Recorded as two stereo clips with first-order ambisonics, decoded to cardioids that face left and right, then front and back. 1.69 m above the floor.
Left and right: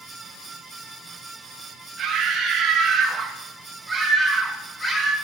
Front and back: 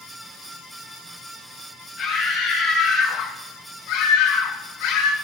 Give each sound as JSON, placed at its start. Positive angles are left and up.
{"t": 2.0, "sound": "a scream", "azimuth_deg": -40, "distance_m": 3.0}